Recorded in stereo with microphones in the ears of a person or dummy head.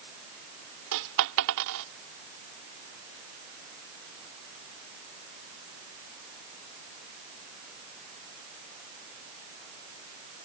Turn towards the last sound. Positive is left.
turn(degrees=-60)  # may be behind; listen again after turning